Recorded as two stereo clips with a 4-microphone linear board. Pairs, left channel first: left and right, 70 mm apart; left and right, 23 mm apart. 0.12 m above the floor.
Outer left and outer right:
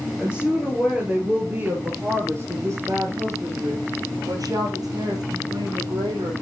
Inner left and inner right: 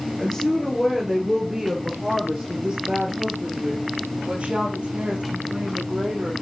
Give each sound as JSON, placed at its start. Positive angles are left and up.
{"t": 0.2, "sound": "a woman speaking", "side_deg": -5, "distance_m": 2.5}